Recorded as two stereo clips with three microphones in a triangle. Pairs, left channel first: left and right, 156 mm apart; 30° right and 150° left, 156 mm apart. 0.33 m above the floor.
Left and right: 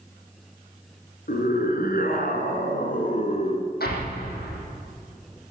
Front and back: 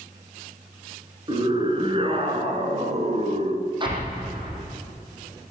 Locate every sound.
1.3 s a scream: 95° left, 5 m; by 3.7 s 130° left, 2 m
3.8 s an explosion: 90° left, 4.5 m